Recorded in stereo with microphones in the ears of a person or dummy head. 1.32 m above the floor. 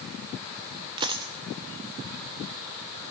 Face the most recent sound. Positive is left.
turn(degrees=-20)  # may be behind; listen again after turning